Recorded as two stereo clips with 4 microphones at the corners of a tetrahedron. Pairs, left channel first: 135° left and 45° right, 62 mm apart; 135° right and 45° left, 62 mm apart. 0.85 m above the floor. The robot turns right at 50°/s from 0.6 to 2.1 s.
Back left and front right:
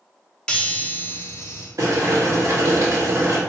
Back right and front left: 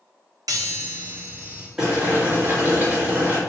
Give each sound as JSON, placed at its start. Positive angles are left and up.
{"t": 0.5, "sound": "a chime", "azimuth_deg": 55, "distance_m": 0.8}
{"t": 1.8, "sound": "boiling", "azimuth_deg": -30, "distance_m": 1.5}